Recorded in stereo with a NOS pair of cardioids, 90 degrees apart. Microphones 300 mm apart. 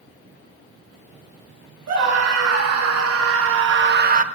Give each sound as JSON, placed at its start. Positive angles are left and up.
{"t": 1.9, "sound": "a scream", "azimuth_deg": -65, "distance_m": 2.0}